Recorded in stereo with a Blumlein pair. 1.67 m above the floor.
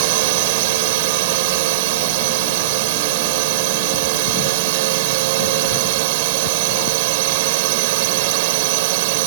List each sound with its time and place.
0.0 s a drone: 50° right